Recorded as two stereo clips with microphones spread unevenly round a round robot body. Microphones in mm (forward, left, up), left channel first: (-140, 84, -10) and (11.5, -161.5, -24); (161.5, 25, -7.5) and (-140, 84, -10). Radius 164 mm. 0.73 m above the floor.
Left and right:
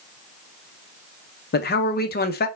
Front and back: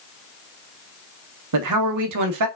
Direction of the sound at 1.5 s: 175° left.